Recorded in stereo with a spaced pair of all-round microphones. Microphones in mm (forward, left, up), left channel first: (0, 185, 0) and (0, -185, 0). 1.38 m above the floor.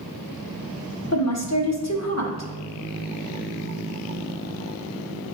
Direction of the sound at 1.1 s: 45° left (ahead or behind).